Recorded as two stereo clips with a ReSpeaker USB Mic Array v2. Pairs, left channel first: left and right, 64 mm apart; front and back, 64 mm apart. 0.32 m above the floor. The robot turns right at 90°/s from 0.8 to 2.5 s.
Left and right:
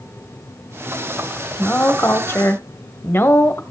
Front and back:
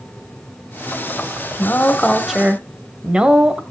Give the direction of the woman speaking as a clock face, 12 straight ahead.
11 o'clock.